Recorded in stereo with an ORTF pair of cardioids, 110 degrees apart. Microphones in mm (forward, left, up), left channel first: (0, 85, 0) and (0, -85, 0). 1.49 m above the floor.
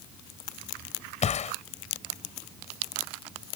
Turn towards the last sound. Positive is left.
turn(degrees=45)